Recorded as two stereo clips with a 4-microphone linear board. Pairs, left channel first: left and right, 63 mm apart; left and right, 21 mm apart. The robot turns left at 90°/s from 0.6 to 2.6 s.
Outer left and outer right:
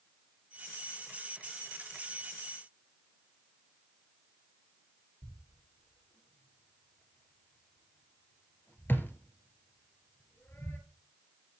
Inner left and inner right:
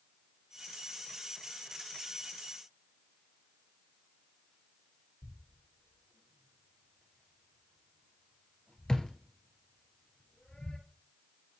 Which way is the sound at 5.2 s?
35° left (ahead or behind).